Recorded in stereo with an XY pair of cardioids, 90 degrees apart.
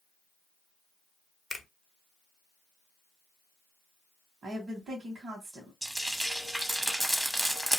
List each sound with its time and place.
1.5 s a finger snap: 25° left, 0.9 m
4.4 s a woman speaking: 55° right, 1.6 m
5.8 s frying: 15° right, 1.1 m